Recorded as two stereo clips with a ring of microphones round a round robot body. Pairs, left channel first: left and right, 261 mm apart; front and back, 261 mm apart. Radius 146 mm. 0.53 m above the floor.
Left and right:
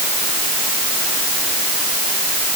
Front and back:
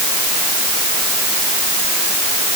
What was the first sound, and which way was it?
Only background noise.